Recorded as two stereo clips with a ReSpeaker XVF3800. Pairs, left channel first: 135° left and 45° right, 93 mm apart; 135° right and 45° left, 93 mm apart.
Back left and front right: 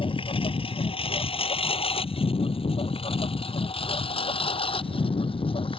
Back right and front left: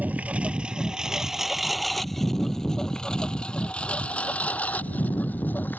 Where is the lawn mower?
115° left; by 5.8 s 155° left.